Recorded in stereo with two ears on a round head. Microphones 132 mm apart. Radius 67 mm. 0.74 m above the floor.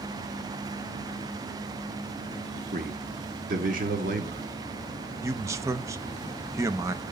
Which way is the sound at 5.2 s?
20° right (ahead or behind).